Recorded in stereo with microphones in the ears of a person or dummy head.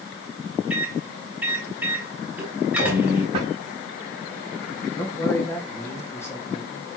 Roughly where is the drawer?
Right.